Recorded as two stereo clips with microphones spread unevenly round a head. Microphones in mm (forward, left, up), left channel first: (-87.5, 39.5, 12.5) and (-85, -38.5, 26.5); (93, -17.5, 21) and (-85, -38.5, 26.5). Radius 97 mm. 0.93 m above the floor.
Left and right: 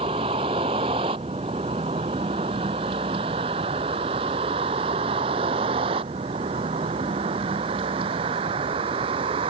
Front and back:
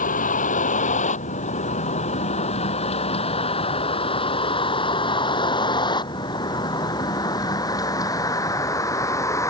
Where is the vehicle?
40° right; by 9.5 s 70° right.